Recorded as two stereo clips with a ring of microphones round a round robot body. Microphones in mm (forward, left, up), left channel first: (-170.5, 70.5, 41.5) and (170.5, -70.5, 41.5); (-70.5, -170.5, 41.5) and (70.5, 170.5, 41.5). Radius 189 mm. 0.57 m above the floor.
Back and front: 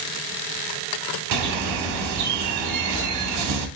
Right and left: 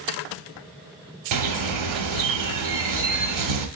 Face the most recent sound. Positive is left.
turn(degrees=25)